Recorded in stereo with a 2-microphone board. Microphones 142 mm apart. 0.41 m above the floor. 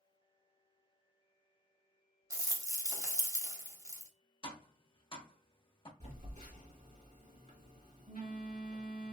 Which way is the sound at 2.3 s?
25° right (ahead or behind).